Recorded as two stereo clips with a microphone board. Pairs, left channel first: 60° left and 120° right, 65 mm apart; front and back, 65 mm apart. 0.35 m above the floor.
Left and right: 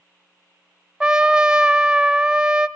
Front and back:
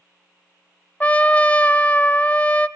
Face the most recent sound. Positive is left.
turn(degrees=-55)